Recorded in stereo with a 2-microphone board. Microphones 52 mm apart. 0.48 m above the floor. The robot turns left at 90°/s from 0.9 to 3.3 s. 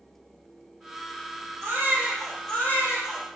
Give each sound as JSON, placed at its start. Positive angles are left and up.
{"t": 1.6, "sound": "a baby crying", "azimuth_deg": -125, "distance_m": 8.5}